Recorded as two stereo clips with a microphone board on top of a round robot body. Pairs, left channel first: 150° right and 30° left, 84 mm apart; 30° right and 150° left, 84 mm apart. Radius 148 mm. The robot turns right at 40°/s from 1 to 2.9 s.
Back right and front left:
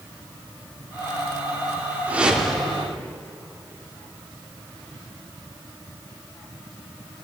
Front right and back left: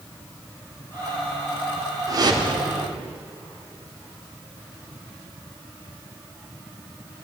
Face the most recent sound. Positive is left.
turn(degrees=135)